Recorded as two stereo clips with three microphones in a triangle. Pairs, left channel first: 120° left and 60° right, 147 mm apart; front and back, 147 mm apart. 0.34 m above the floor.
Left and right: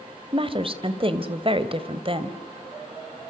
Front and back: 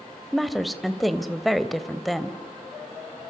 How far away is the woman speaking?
About 1.3 m.